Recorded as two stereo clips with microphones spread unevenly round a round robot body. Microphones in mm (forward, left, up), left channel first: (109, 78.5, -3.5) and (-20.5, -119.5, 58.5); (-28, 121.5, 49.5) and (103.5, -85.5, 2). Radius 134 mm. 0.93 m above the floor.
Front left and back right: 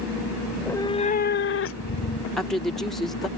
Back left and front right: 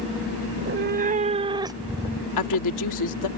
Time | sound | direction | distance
0.5 | a cat meowing | 65° right | ?
2.4 | a woman speaking | 145° left | ?